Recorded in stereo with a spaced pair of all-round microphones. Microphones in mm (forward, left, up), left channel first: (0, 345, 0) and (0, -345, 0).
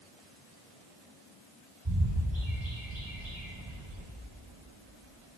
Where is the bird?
40° right (ahead or behind), 4 m.